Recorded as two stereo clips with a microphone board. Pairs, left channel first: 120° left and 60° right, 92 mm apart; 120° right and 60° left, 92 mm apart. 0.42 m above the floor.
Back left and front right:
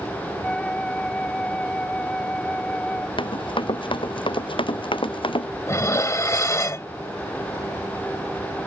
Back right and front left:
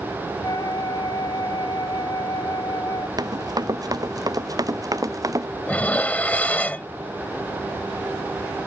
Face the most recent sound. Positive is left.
turn(degrees=170)